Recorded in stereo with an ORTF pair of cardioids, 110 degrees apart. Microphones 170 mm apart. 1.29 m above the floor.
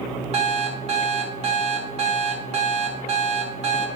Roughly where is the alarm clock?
Ahead right.